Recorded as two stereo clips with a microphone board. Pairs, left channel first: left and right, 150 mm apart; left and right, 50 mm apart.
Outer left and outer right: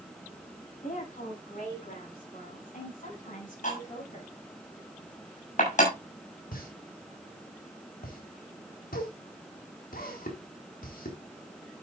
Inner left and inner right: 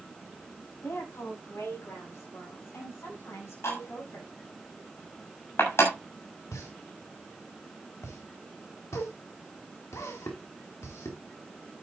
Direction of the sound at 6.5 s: 75° left (ahead or behind).